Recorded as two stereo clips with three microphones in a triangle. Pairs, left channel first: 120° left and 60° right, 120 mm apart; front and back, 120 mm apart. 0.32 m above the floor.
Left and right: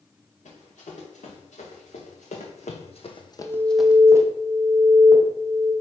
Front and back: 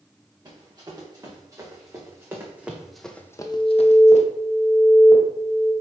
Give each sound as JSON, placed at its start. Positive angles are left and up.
{"t": 0.5, "sound": "running footsteps", "azimuth_deg": 125, "distance_m": 3.0}
{"t": 3.4, "sound": "an alarm", "azimuth_deg": 170, "distance_m": 1.8}